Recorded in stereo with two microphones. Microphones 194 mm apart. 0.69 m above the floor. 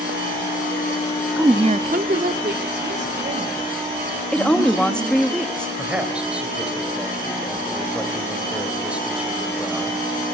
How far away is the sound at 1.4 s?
About 0.7 m.